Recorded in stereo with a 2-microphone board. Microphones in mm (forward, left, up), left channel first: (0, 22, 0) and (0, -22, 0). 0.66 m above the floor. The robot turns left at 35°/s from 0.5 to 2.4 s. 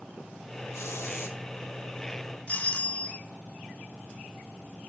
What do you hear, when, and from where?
0.7 s a hiss: 80° left, 1.3 m; by 1.4 s 75° left (ahead or behind), 1.3 m
2.5 s a doorbell: 30° left (ahead or behind), 1.7 m